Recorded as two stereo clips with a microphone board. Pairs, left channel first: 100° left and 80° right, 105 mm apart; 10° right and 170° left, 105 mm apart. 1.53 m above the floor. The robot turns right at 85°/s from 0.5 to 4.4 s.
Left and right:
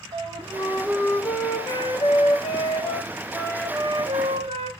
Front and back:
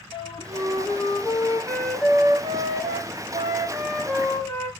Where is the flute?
40° right, 0.7 m; by 4.7 s 65° right, 0.7 m.